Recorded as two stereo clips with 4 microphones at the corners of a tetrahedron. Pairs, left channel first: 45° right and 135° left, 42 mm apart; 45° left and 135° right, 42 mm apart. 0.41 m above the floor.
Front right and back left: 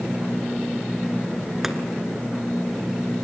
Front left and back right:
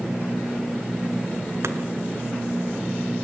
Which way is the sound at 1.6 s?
145° right.